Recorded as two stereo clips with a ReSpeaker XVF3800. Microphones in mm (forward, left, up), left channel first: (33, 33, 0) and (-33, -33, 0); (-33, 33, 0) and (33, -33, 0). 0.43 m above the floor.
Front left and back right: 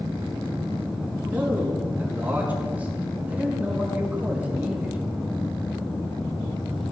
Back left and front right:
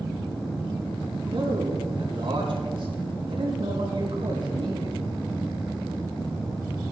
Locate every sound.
1.3 s a man speaking: 65° right, 4.5 m